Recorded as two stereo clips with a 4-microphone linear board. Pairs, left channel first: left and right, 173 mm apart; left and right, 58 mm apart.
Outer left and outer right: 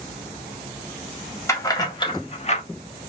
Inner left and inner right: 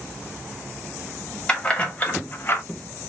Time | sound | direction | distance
1.5 | keys jangling | 15° left (ahead or behind) | 0.8 m